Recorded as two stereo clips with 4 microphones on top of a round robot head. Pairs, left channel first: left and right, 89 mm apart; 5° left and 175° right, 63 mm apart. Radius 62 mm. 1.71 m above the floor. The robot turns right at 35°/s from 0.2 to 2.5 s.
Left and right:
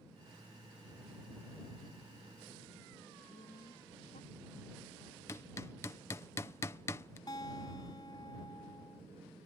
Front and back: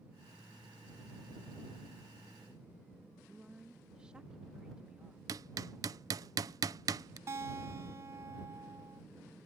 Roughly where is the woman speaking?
Behind left.